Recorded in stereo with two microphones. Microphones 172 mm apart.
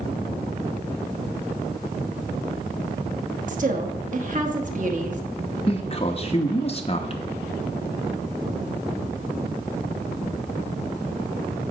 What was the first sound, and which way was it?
A woman speaking, 50° right (ahead or behind).